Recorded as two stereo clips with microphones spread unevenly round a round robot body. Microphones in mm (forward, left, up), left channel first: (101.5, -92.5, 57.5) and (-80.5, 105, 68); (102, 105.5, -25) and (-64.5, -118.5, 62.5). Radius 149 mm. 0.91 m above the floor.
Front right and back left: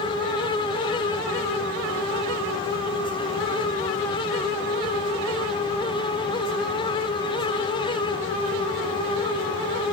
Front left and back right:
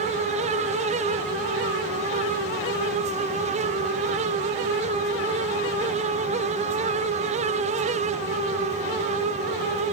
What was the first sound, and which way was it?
Only background noise.